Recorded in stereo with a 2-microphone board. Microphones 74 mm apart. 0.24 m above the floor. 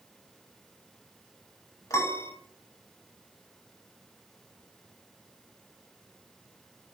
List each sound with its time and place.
1.9 s a piano: 45° left (ahead or behind), 0.6 m